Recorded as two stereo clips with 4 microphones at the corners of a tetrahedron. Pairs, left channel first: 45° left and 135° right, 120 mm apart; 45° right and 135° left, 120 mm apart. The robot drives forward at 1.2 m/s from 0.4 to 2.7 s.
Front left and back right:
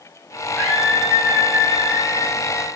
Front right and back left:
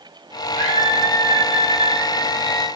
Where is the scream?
120° left, 6.5 m; by 2.7 s 135° left, 8 m.